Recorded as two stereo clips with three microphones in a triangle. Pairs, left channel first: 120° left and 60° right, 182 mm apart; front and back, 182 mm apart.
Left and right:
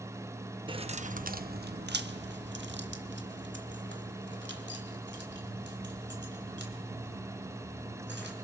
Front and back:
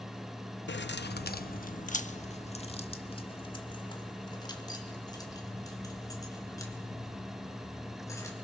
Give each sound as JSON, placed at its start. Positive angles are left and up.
{"t": 0.7, "sound": "keys jangling", "azimuth_deg": 0, "distance_m": 0.6}